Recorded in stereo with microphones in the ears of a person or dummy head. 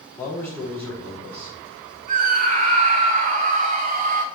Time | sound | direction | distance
0.2 | a man speaking | 10° left (ahead or behind) | 3.5 m
2.1 | a scream | 45° right (ahead or behind) | 1.5 m